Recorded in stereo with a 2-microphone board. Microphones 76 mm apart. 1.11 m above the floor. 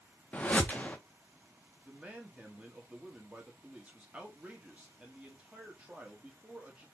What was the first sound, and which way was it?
A whoosh, 20° left (ahead or behind).